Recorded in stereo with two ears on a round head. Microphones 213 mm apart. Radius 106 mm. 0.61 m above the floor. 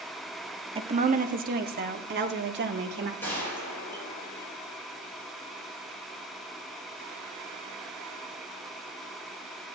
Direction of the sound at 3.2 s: 10° left (ahead or behind).